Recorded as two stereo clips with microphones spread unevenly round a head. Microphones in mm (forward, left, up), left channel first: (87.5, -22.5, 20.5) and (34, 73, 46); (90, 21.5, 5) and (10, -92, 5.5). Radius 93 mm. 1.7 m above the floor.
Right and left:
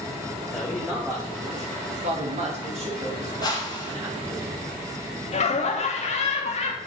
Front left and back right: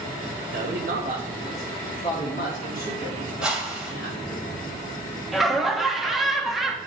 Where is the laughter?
35° right, 1.3 m.